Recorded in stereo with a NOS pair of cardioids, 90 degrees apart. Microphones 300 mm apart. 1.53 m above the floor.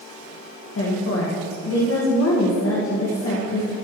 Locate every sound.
0.8 s a woman speaking: 50° left, 2 m